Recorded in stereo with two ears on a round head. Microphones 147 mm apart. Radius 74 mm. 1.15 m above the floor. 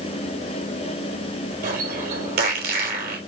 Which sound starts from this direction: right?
A bird, at 1.6 s.